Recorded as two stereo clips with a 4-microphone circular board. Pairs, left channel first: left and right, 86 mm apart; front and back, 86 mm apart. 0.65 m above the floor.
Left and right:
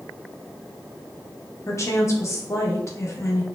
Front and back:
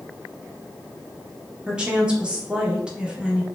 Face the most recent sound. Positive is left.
turn(degrees=110)